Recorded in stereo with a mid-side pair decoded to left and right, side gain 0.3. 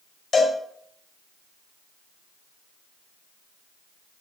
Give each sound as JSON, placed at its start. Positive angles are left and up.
{"t": 0.3, "sound": "a cowbell", "azimuth_deg": 65, "distance_m": 4.5}